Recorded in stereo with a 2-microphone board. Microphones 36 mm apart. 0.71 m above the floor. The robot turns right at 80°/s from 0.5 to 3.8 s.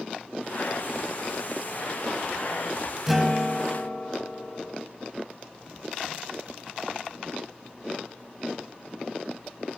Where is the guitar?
10° right, 0.7 m; by 4.8 s 50° left, 0.7 m.